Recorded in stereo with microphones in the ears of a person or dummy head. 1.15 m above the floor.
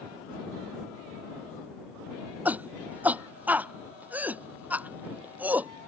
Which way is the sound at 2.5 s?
5° right (ahead or behind).